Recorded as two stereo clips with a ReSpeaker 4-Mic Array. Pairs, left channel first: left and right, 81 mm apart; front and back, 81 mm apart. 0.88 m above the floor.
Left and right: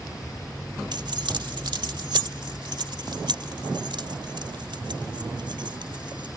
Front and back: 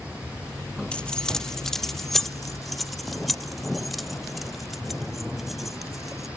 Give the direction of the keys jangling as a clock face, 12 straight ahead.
3 o'clock.